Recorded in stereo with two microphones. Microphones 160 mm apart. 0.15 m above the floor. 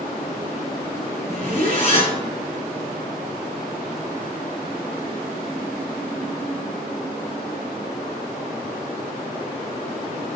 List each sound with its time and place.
1.3 s a zipper: 40° left (ahead or behind), 1.3 m